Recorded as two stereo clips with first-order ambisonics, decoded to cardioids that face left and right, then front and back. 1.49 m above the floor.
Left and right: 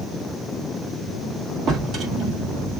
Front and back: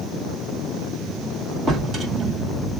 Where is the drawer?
130° right, 1.1 m.